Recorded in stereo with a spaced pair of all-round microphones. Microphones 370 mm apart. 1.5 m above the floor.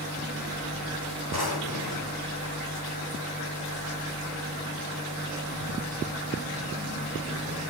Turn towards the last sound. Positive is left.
turn(degrees=75)  # may be behind; listen again after turning